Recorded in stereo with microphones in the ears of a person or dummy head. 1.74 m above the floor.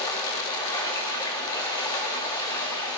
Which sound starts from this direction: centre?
Running water, at 0.0 s.